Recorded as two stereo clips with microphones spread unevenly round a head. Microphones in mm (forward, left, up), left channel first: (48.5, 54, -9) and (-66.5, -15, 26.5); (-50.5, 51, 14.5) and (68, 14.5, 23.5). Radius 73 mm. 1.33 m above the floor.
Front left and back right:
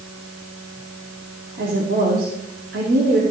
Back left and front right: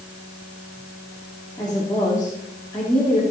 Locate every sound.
1.6 s a woman speaking: 120° right, 3 m